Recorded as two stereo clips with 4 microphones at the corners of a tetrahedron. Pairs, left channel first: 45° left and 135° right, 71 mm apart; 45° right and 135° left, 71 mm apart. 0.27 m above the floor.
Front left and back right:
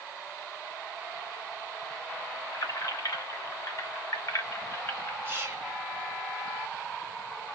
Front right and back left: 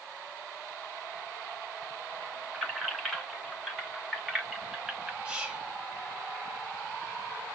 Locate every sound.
2.5 s keys jangling: 50° left, 2 m; by 5.2 s 60° left, 1.0 m
5.2 s whispering: 160° right, 1.4 m